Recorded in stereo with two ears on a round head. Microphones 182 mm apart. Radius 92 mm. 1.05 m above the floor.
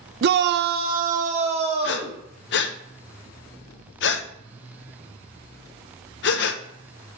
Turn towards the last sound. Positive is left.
turn(degrees=60)  # may be behind; listen again after turning